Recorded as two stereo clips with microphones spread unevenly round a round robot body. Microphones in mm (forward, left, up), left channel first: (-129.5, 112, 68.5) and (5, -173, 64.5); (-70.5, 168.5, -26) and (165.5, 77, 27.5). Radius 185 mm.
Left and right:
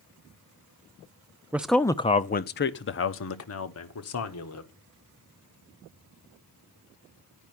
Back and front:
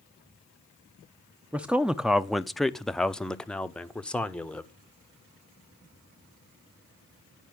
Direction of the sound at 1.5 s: 135° right.